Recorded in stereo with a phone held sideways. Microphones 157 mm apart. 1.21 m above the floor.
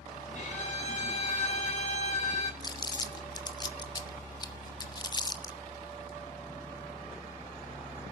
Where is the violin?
50° left (ahead or behind), 6 m.